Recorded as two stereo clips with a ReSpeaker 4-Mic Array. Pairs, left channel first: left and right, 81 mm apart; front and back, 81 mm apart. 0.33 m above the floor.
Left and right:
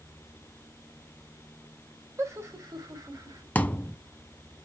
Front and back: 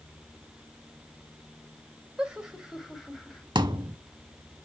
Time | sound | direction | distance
2.2 | laughter | 110° right | 1.8 m
3.5 | a thud | 160° left | 0.7 m